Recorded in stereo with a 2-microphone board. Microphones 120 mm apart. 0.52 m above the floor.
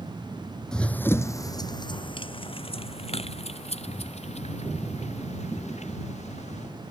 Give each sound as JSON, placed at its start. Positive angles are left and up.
{"t": 0.7, "sound": "running footsteps", "side_deg": 5}